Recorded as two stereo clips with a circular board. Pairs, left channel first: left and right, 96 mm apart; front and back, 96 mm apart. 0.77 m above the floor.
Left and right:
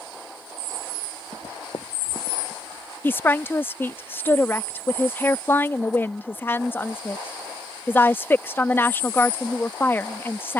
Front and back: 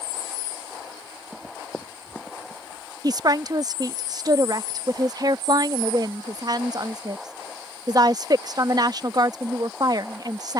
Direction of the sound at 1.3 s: 85° left.